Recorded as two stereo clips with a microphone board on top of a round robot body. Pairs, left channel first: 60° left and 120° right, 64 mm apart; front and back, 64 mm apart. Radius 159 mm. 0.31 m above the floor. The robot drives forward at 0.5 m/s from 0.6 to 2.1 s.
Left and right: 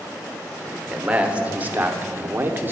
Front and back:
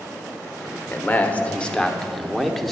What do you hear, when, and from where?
0.9 s a man speaking: 50° right, 1.4 m; by 2.7 s 85° right, 1.3 m